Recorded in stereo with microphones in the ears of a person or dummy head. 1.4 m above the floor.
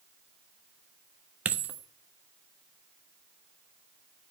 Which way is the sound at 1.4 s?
10° right (ahead or behind).